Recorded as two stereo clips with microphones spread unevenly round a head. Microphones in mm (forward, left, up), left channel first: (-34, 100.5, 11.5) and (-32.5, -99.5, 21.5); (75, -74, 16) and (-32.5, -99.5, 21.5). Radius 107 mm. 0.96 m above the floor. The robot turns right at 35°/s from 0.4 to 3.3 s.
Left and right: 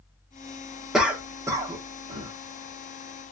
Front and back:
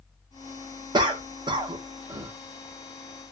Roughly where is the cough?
Behind.